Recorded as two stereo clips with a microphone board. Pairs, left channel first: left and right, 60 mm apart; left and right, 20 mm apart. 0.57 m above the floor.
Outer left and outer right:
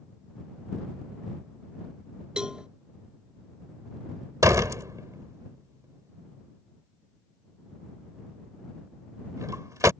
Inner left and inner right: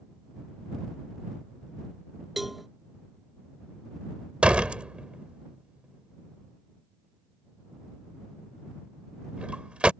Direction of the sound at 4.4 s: 65° right (ahead or behind).